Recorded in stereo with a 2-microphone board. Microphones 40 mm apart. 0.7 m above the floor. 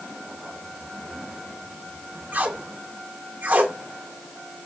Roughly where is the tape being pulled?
Right.